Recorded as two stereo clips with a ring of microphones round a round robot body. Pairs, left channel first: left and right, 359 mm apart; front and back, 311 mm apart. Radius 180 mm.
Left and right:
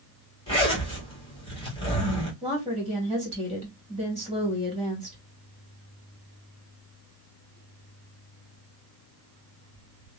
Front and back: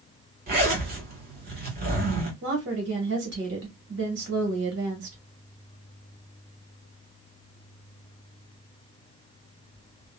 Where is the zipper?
155° left, 1.5 m.